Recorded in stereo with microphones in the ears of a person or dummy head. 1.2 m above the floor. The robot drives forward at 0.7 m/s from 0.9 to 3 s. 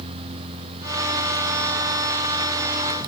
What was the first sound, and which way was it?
Only background noise.